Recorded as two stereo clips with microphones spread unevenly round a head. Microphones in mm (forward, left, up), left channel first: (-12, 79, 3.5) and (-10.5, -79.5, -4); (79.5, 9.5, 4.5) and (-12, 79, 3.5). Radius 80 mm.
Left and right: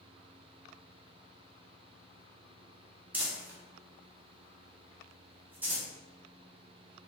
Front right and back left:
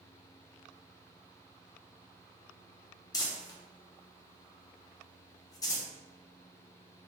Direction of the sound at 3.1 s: 15° right.